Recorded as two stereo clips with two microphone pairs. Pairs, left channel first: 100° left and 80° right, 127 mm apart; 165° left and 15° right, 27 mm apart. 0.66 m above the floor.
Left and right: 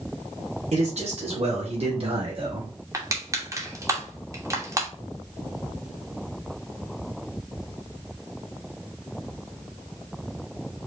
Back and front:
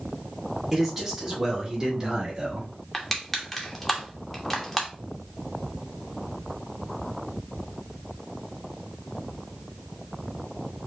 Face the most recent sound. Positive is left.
turn(degrees=-115)